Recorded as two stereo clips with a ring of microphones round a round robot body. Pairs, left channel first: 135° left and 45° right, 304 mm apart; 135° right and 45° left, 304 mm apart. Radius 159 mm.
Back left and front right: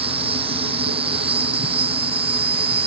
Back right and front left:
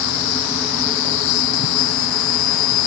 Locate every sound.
0.0 s an insect: 120° right